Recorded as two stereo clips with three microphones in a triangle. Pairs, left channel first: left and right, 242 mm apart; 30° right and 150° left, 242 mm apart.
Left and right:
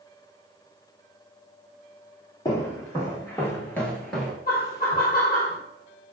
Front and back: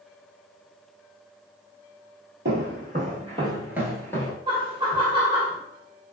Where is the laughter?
95° left, 0.8 m.